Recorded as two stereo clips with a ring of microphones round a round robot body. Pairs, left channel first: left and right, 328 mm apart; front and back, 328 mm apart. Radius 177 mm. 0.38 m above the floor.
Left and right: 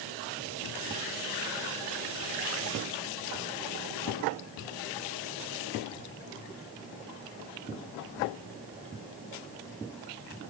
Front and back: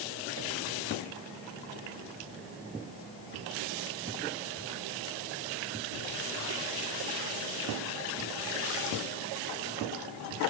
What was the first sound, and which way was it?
Only background noise.